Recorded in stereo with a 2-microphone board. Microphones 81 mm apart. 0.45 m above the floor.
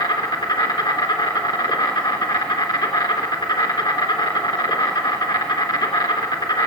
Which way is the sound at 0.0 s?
70° left (ahead or behind).